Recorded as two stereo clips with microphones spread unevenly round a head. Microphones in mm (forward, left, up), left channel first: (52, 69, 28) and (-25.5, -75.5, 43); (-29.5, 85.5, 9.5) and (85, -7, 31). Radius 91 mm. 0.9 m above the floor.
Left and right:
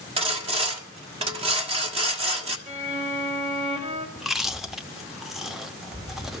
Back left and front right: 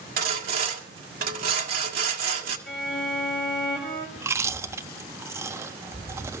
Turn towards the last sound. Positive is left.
turn(degrees=-45)